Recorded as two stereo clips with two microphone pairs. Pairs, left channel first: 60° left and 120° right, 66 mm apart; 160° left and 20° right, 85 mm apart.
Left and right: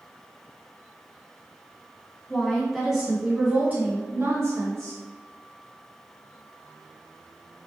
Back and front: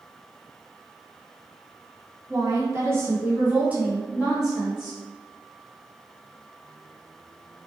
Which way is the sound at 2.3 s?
10° right.